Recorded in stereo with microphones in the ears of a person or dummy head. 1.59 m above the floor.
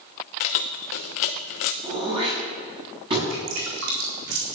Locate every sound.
0.4 s keys jangling: 45° left (ahead or behind), 0.8 m
1.8 s throat clearing: 30° right (ahead or behind), 7 m
3.3 s dripping: 70° right (ahead or behind), 4 m